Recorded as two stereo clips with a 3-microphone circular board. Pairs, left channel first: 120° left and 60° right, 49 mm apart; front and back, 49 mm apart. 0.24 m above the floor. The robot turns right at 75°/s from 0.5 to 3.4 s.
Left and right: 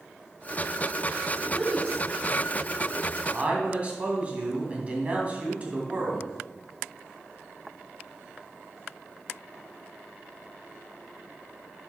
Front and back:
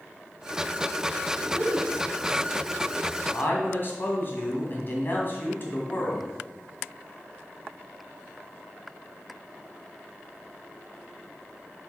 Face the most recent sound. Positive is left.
turn(degrees=-10)